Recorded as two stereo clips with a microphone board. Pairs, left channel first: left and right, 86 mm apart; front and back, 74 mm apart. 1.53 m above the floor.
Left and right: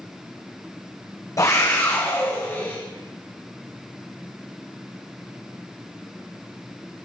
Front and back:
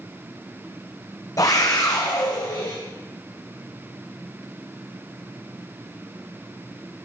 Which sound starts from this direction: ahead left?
A scream, at 1.4 s.